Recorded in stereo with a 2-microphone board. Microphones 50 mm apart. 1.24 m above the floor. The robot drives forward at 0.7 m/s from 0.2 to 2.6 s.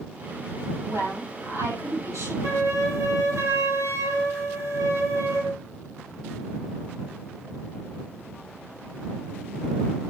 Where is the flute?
80° right, 5.5 m.